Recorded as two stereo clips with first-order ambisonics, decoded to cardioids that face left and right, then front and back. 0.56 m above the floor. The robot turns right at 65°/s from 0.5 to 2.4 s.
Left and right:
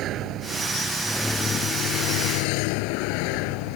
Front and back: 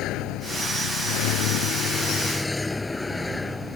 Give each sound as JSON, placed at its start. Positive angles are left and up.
{"t": 0.0, "sound": "a vehicle", "azimuth_deg": -40}